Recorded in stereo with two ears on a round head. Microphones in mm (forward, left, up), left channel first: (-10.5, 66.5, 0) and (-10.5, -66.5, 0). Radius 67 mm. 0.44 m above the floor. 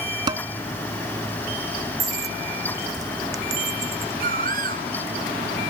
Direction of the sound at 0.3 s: 30° right (ahead or behind).